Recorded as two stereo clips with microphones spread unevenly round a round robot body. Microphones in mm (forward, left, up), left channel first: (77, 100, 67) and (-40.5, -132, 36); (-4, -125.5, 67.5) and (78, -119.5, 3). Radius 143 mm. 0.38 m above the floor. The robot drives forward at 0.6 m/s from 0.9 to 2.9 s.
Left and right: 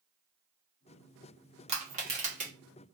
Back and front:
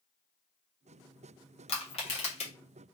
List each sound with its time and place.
1.7 s crushing: 155° right, 1.3 m; by 2.5 s 165° right, 1.6 m